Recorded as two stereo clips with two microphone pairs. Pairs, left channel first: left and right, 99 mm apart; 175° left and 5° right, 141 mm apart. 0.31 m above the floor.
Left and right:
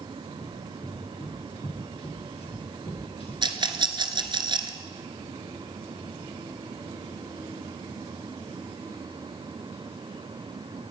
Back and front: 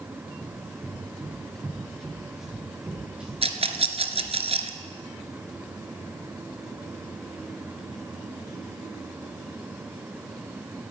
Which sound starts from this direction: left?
Running footsteps, at 0.4 s.